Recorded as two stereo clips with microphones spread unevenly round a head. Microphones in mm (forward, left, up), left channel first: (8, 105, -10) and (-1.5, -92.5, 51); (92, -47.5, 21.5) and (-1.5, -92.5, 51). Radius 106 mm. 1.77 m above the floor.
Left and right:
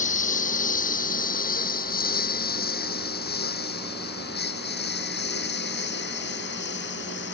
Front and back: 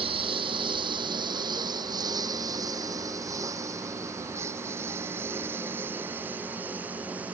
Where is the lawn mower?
145° left; by 7.4 s 125° left.